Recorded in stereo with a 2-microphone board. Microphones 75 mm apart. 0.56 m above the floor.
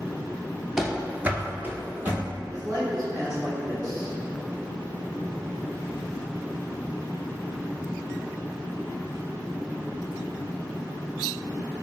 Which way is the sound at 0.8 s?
5° right (ahead or behind).